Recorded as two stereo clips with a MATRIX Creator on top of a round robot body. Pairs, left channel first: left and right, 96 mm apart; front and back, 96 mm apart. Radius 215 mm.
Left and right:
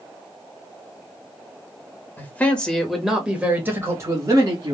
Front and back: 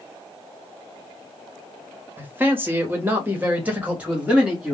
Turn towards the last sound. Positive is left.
turn(degrees=-105)